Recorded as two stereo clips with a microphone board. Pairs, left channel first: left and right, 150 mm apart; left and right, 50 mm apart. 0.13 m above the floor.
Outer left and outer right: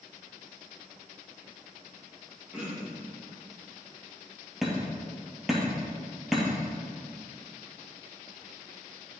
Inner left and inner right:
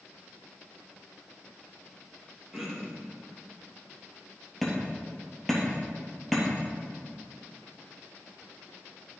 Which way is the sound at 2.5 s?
5° right (ahead or behind).